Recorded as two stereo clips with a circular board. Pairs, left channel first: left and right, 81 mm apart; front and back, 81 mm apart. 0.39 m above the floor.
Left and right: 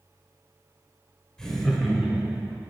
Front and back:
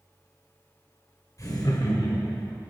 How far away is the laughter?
About 1.3 m.